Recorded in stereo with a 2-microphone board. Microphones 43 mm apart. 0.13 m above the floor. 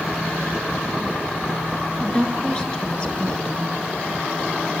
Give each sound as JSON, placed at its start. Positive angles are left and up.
{"t": 2.0, "sound": "a woman speaking", "side_deg": 25, "distance_m": 2.0}